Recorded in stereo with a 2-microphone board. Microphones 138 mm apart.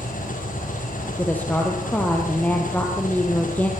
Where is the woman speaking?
10° left (ahead or behind), 4 m.